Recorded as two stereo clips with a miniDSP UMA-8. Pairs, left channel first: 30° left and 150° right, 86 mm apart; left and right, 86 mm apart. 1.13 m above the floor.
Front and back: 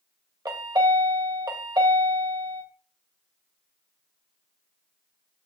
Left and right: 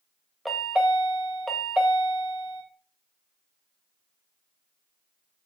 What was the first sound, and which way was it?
A chime, straight behind.